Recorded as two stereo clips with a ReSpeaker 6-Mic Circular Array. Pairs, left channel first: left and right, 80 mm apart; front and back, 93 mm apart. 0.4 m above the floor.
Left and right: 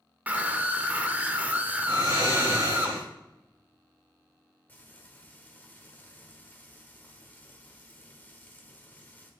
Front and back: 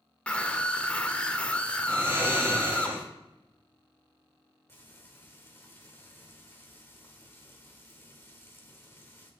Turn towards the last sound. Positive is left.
turn(degrees=40)